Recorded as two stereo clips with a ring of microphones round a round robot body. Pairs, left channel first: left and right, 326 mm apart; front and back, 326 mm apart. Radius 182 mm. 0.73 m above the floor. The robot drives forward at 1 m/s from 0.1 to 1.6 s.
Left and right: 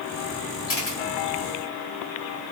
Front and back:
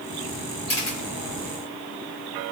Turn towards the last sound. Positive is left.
turn(degrees=50)